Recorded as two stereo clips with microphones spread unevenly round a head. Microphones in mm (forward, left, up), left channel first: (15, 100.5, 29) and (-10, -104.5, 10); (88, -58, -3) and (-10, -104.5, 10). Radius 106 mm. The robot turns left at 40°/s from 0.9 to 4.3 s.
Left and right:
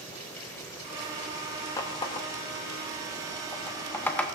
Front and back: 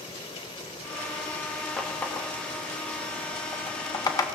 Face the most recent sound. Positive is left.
turn(degrees=15)